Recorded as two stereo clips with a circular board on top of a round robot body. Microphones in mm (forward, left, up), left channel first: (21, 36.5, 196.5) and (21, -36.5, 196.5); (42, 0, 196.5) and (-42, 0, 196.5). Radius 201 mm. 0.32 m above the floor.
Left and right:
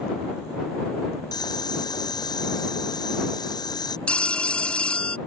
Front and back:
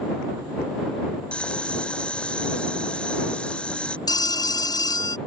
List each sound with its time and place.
1.3 s boiling: 80° left
4.1 s a phone ringing: 15° left